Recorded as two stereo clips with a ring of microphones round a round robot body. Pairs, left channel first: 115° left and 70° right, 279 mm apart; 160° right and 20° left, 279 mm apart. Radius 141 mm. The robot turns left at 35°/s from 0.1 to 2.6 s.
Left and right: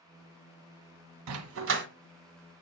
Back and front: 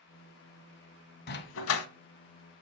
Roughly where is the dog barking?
Right.